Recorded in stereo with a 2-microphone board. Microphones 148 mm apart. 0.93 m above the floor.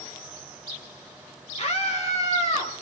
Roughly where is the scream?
Left.